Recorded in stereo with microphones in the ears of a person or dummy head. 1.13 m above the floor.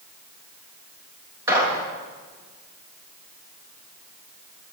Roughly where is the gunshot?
Centre.